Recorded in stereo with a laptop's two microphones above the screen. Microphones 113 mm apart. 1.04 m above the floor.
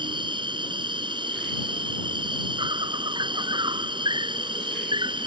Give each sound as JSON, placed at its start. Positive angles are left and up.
{"t": 0.0, "sound": "an insect", "side_deg": -45}